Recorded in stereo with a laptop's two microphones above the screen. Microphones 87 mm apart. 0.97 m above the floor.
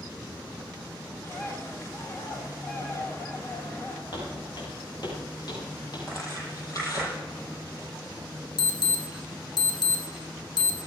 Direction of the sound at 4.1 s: 65° left (ahead or behind).